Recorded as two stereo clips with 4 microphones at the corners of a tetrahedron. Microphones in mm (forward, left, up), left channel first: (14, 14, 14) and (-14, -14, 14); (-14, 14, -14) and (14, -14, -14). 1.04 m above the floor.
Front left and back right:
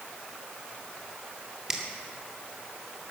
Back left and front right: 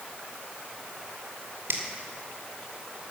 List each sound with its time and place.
1.7 s a finger snap: 55° right, 2 m